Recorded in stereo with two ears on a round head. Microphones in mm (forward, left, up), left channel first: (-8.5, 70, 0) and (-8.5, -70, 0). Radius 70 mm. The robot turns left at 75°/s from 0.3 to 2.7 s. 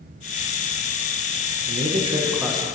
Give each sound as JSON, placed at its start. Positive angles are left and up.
{"t": 1.7, "sound": "a man speaking", "azimuth_deg": -115, "distance_m": 0.9}